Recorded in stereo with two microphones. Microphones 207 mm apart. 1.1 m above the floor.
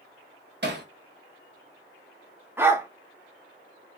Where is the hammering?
50° right (ahead or behind), 0.8 m.